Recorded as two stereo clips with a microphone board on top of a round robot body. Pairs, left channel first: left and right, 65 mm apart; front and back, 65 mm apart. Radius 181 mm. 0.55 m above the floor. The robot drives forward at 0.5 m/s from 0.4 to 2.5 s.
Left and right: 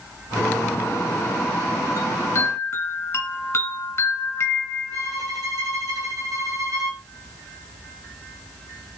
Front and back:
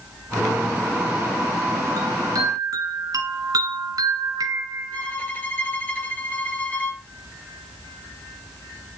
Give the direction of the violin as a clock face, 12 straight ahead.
2 o'clock.